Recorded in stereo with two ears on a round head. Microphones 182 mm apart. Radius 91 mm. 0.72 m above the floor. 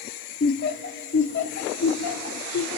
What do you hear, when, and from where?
0.4 s laughter: 45° left (ahead or behind), 1.6 m; by 2.8 s 70° left (ahead or behind), 2.5 m